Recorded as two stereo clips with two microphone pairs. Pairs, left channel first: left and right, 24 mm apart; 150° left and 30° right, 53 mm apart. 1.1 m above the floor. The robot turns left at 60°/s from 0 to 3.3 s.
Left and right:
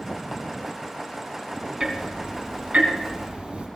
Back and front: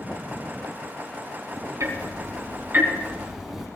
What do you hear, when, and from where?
1.8 s ticking: 20° right, 3.5 m; by 3.7 s 110° right, 3.5 m